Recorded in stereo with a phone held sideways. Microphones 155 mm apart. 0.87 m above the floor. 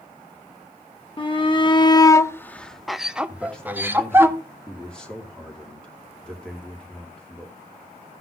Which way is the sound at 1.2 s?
30° left (ahead or behind).